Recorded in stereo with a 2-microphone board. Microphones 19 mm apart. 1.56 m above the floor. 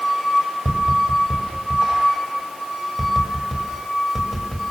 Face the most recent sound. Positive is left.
turn(degrees=0)  # may be behind; listen again after turning